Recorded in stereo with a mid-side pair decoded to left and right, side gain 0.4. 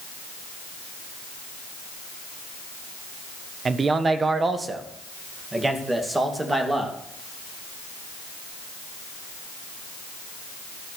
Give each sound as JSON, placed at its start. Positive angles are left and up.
{"t": 3.6, "sound": "a man speaking", "azimuth_deg": -45, "distance_m": 1.2}